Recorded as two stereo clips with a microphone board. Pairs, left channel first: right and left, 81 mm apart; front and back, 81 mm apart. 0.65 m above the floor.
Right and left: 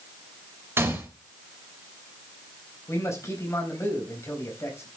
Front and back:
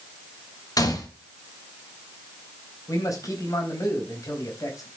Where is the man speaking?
40° right, 4 m.